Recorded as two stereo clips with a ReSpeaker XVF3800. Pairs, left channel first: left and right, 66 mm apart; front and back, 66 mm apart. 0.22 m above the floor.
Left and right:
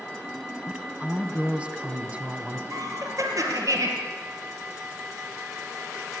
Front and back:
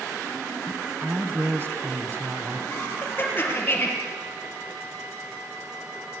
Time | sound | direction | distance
0.7 | a woman speaking | 150° right | 2.0 m
2.7 | laughter | 60° right | 5 m